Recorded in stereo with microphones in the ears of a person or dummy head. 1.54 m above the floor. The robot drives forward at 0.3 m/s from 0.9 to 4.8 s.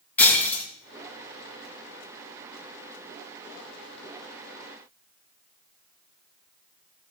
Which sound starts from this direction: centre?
Breaking glass, at 0.2 s.